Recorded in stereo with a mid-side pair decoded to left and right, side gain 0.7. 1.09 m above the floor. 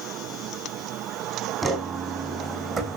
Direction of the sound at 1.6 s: 25° right.